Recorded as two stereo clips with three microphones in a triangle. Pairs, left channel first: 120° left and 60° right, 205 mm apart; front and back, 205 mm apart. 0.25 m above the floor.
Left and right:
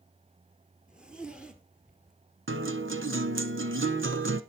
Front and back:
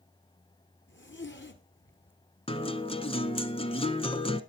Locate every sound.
0.9 s a zipper: 25° left, 1.7 m
2.5 s a guitar: 60° right, 0.9 m